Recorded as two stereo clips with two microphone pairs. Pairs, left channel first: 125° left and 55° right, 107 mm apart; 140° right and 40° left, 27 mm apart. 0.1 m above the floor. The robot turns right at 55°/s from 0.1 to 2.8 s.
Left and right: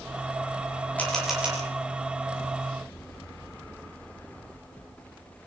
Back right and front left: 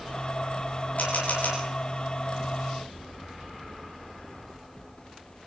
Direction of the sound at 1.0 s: 160° right.